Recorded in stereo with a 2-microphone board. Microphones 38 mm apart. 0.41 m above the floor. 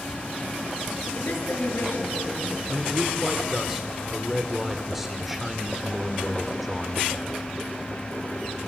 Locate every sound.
1.1 s a woman speaking: 75° left (ahead or behind), 6.5 m
2.7 s a man speaking: 5° right (ahead or behind), 1.4 m